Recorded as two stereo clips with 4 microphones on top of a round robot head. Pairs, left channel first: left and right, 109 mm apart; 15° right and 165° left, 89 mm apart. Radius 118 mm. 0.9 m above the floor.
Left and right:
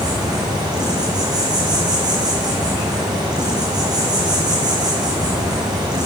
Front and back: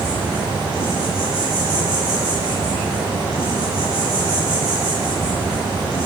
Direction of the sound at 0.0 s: 145° right.